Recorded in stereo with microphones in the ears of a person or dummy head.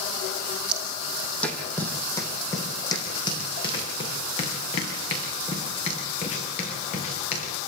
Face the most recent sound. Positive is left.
turn(degrees=35)  # may be behind; listen again after turning